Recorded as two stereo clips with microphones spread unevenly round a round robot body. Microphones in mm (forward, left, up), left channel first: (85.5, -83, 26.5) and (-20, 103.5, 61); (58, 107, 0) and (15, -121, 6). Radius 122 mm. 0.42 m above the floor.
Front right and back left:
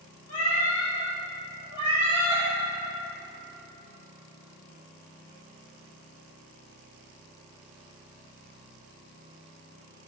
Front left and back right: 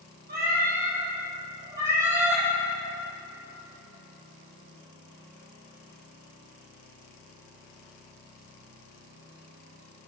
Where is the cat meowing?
55° right, 2.5 m; by 2.4 s 15° right, 3 m.